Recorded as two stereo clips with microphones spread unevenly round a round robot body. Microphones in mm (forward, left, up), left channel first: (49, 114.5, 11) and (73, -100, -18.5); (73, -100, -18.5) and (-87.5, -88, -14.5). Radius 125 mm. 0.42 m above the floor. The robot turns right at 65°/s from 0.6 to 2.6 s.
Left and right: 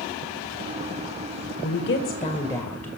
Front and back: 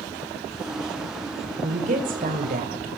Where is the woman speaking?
120° left, 2 m; by 2.9 s straight behind, 2 m.